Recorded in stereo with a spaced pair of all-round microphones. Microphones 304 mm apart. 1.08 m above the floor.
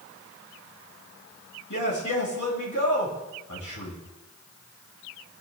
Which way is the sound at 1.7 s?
85° left.